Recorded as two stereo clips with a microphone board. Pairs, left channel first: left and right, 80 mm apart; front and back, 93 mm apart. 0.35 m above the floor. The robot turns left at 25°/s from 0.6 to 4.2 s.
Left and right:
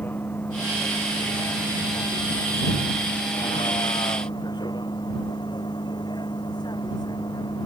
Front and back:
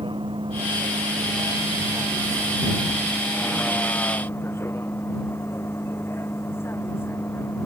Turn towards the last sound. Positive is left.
turn(degrees=65)